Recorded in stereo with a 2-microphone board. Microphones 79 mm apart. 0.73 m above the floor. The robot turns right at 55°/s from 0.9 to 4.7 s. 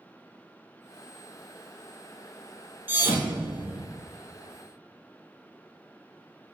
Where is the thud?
25° right (ahead or behind), 0.8 m; by 3.8 s 20° right (ahead or behind), 0.8 m.